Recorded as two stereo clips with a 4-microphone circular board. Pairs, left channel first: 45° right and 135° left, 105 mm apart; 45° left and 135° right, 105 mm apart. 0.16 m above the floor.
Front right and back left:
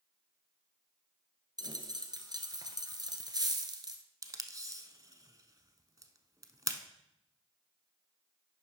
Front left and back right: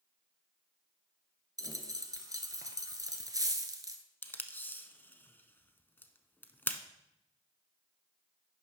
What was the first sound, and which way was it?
A dropped coin, 175° left.